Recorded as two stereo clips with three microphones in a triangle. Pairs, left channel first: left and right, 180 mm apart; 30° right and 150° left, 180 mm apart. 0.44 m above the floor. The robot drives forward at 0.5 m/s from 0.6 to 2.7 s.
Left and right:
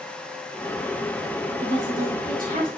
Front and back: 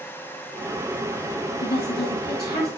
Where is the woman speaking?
50° right, 5 m; by 2.7 s 55° right, 4.5 m.